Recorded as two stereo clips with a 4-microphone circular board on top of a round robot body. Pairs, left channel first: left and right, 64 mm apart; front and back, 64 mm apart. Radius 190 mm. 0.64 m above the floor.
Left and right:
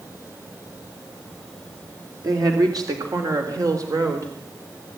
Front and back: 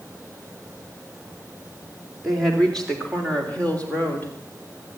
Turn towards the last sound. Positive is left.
turn(degrees=-60)